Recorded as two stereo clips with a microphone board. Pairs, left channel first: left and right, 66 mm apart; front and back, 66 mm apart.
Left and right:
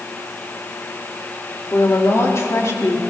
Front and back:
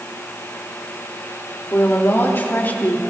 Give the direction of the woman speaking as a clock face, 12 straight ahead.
10 o'clock.